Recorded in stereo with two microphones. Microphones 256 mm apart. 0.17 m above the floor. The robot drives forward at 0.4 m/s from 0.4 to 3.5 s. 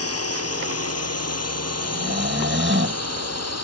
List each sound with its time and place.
0.0 s a drone: 65° left (ahead or behind); by 3.7 s 75° left (ahead or behind)
1.8 s snoring: 40° right (ahead or behind); by 3.0 s 50° right (ahead or behind)